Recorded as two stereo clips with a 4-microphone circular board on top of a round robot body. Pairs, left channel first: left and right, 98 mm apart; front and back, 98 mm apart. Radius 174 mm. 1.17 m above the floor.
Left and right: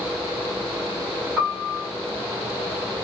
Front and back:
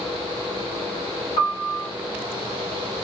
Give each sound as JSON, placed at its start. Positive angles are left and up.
{"t": 1.4, "sound": "a piano", "azimuth_deg": -20, "distance_m": 1.4}